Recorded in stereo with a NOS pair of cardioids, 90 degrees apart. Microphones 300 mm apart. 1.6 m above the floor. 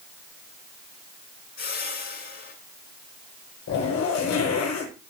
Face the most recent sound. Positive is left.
turn(degrees=60)